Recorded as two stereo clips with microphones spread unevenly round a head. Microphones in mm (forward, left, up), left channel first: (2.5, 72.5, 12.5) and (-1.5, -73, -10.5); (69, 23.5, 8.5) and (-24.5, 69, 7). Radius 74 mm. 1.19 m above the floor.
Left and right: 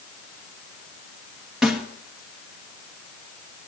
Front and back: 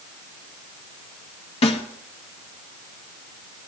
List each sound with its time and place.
1.6 s a snare drum: 5° right, 2 m